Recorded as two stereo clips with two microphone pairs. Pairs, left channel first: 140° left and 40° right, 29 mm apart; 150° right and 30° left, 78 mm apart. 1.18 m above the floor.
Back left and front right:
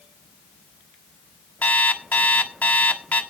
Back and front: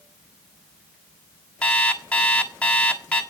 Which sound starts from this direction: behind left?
An alarm clock, at 1.6 s.